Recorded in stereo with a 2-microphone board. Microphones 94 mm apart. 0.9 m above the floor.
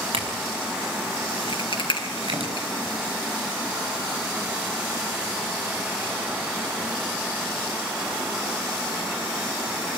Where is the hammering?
I don't hear hammering.